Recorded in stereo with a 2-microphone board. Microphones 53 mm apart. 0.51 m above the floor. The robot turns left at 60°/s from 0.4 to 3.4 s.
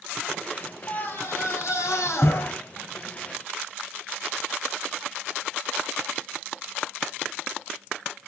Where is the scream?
145° left, 3.5 m; by 2.5 s 45° left, 3.5 m.